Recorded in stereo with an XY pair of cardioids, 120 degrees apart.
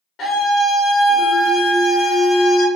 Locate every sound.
0.2 s a scream: 65° left, 0.7 m